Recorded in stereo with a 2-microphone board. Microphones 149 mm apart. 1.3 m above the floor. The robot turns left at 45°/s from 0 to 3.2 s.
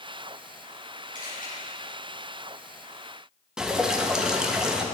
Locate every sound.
1.1 s a camera shutter: 65° left (ahead or behind), 3 m; by 1.5 s 75° left (ahead or behind), 3 m
3.6 s dripping: 5° right (ahead or behind), 0.7 m